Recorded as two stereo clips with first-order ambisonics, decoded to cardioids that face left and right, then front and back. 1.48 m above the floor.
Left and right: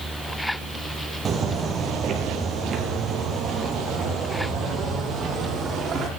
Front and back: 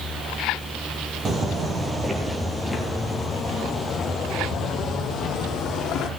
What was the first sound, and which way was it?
Footsteps, 130° right.